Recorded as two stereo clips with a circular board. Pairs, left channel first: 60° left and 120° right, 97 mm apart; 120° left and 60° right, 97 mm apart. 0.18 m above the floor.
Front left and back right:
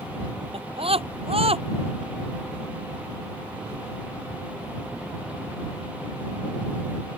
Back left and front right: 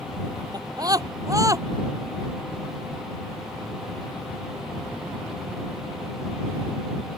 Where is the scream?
105° right; by 1.6 s 115° right.